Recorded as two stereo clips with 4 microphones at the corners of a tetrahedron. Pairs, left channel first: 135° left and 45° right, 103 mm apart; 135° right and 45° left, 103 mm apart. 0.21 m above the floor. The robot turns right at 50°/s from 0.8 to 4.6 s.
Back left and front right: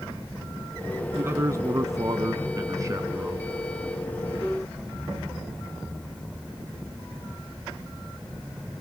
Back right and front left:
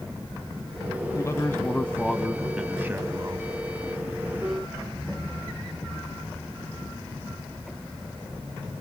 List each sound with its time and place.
1.1 s a man speaking: 100° right, 1.6 m; by 3.5 s 20° left, 1.6 m